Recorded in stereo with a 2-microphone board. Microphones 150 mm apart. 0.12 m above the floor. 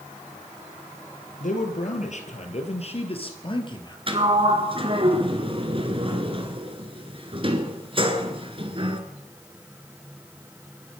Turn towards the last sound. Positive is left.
turn(degrees=-35)  # may be behind; listen again after turning